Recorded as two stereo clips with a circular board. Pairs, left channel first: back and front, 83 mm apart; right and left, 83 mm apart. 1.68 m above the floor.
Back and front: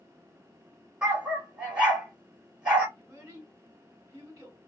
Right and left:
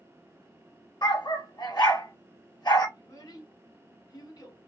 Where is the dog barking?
75° right, 2.5 m.